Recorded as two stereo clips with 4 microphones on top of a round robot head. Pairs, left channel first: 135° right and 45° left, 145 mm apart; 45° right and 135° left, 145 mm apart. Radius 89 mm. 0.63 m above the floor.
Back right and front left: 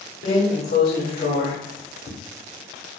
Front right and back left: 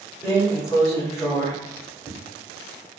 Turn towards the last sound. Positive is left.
turn(degrees=-120)